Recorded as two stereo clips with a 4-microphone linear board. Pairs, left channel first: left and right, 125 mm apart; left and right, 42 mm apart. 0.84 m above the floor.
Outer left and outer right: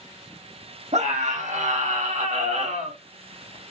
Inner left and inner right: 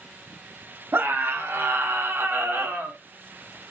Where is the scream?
65° right (ahead or behind), 2 m.